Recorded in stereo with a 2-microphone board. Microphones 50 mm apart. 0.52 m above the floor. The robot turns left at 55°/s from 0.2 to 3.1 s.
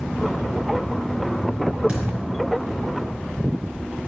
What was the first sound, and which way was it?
A thud, 25° right (ahead or behind).